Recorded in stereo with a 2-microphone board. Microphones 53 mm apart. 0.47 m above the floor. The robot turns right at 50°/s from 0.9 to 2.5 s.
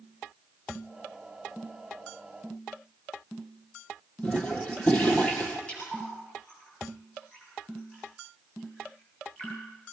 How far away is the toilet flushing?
About 2.5 m.